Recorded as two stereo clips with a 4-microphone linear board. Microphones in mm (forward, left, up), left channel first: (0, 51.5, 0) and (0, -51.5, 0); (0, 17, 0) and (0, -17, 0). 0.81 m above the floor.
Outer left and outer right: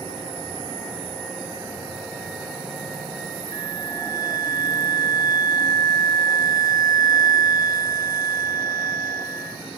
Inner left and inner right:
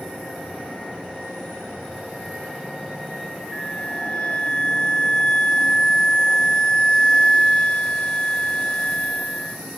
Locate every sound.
3.5 s a flute: 35° left (ahead or behind), 0.8 m